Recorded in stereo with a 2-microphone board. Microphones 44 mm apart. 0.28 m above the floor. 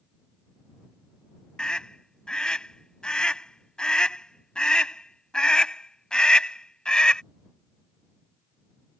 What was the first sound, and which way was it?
A scream, 20° left (ahead or behind).